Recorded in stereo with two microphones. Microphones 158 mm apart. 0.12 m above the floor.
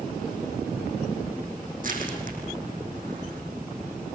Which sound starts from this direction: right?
Crushing, at 1.8 s.